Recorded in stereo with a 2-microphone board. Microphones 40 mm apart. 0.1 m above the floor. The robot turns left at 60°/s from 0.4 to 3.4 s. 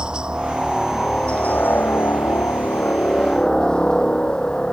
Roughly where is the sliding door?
No sliding door in this recording.